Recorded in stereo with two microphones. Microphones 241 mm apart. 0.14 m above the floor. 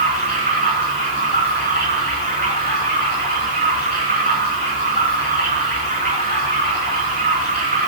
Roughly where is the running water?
Right.